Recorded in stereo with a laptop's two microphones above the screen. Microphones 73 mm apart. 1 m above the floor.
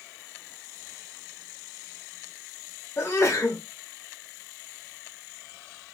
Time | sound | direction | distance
3.0 | a sneeze | 40° left (ahead or behind) | 1.1 m